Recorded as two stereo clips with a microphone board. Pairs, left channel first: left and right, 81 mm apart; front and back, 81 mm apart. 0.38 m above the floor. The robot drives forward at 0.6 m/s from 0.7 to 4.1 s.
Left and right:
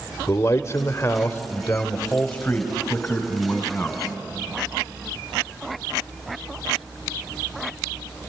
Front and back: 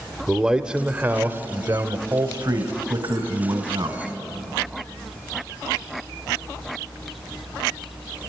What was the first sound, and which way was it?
A man speaking, 110° left.